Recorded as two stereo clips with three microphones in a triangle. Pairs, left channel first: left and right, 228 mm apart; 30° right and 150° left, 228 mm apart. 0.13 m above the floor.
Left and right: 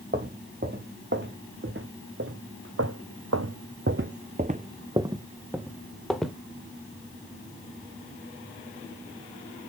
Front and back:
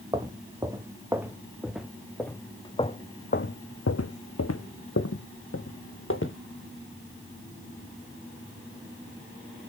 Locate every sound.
0.1 s footsteps: 135° right, 1.9 m; by 6.3 s straight ahead, 1.5 m